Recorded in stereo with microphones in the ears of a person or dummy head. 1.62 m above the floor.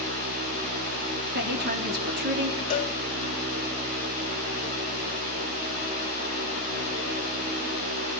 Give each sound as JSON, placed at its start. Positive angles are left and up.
{"t": 1.3, "sound": "a woman speaking", "side_deg": -55, "distance_m": 3.5}
{"t": 2.7, "sound": "a cowbell", "side_deg": 40, "distance_m": 1.8}